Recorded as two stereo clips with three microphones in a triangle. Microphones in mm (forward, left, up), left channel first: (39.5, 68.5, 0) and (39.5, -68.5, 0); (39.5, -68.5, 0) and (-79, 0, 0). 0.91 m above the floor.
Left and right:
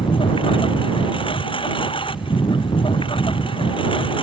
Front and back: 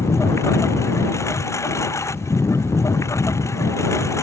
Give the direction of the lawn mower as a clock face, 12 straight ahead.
11 o'clock.